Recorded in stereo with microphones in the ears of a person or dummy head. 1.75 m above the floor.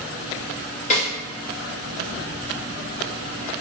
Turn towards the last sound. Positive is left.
turn(degrees=40)  # may be behind; listen again after turning